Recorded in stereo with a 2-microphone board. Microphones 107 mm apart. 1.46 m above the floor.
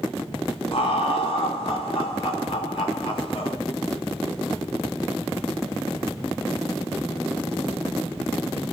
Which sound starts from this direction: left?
Laughter, at 0.7 s.